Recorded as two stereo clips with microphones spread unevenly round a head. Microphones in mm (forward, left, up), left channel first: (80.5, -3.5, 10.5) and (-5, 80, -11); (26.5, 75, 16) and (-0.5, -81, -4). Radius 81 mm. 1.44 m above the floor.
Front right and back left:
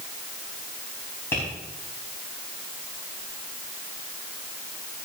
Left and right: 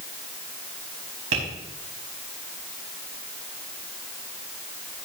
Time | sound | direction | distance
1.3 | tapping | 120° right | 5 m